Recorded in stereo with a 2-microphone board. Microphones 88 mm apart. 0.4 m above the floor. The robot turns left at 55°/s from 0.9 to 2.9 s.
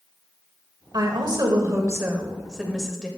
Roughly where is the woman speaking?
Right.